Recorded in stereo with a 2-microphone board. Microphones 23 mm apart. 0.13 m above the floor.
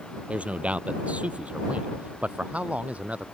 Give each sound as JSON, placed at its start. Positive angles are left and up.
{"t": 0.3, "sound": "a man speaking", "side_deg": -65}